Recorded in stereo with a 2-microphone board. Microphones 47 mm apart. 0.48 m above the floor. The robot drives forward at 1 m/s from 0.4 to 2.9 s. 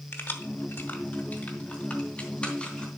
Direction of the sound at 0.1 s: 60° left (ahead or behind).